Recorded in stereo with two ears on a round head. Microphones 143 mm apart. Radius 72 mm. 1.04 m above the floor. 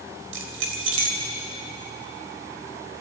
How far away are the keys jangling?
About 3.5 m.